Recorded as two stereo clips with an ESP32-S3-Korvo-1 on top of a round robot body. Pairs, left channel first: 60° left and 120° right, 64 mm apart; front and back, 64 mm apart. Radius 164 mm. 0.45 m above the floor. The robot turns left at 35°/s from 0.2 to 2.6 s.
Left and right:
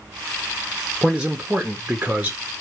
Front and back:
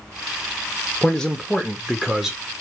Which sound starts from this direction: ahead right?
A man speaking, at 1.0 s.